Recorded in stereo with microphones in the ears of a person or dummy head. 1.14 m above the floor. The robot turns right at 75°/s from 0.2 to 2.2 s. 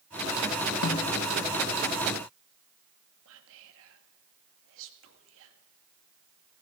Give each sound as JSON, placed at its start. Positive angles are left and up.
{"t": 0.8, "sound": "a snare drum", "side_deg": 65, "distance_m": 1.0}
{"t": 3.2, "sound": "whispering", "side_deg": -75, "distance_m": 2.0}